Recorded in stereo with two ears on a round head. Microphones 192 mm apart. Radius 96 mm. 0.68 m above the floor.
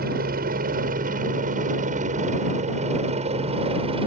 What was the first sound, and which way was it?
A helicopter, 45° right (ahead or behind).